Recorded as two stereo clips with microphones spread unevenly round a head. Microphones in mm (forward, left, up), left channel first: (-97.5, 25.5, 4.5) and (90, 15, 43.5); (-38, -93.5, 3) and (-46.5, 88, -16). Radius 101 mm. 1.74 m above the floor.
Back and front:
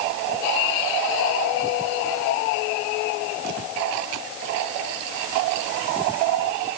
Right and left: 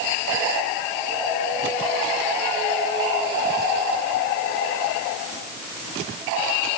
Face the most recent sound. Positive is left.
No sound to turn to.